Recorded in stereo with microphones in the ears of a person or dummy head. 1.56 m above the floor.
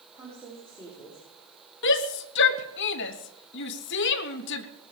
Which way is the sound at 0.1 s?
10° right (ahead or behind).